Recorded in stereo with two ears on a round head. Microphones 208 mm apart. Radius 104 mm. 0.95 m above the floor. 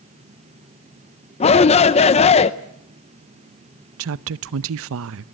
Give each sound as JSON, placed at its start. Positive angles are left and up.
{"t": 1.4, "sound": "a shout", "side_deg": 25, "distance_m": 0.6}
{"t": 4.0, "sound": "a woman speaking", "side_deg": -65, "distance_m": 0.6}